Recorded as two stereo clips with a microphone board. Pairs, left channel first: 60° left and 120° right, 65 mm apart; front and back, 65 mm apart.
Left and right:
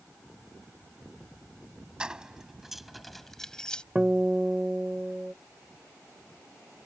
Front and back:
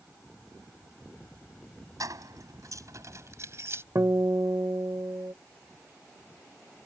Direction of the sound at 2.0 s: 165° left.